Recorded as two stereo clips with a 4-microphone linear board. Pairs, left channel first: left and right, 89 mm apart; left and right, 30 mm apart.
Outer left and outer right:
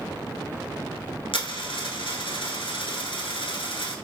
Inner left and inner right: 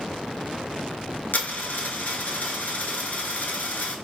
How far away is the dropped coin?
About 0.7 m.